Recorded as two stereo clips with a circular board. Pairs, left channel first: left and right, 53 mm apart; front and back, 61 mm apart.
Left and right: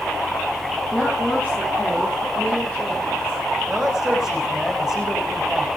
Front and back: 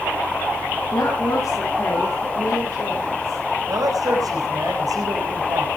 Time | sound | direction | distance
0.9 | a woman speaking | 15° left | 8.5 m
3.7 | a man speaking | 170° right | 7.5 m